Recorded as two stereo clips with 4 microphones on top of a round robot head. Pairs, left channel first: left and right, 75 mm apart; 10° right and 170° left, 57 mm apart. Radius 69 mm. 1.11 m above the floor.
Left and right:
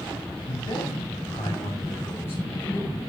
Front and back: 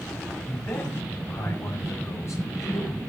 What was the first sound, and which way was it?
A man speaking, 45° left.